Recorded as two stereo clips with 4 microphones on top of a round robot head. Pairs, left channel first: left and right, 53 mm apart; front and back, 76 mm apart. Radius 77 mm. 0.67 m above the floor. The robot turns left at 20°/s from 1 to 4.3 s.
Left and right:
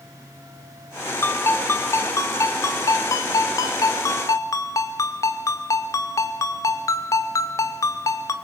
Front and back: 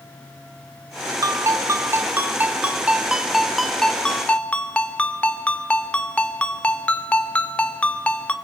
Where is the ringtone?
135° left, 1.4 m; by 8.3 s 75° left, 1.4 m.